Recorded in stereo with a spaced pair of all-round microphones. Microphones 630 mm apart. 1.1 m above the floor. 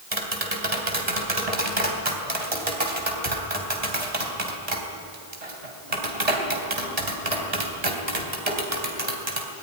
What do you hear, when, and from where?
0.1 s tapping: 70° right (ahead or behind), 3 m